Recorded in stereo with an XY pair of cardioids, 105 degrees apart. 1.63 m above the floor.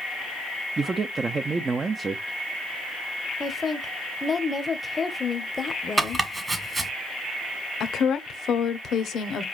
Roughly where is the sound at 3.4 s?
Ahead left.